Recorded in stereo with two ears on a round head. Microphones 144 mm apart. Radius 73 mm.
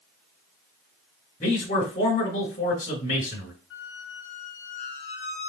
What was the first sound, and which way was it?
A man speaking, 40° left (ahead or behind).